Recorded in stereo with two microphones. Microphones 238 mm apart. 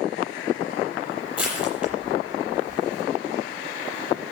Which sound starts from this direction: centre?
Crushing, at 1.4 s.